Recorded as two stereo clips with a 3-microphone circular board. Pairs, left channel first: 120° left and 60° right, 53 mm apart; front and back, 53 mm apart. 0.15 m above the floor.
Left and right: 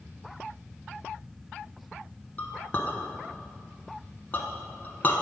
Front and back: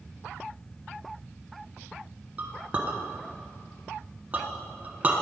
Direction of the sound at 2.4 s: 145° left.